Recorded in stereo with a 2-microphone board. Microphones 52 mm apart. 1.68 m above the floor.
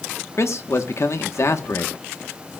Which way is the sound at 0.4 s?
65° left (ahead or behind).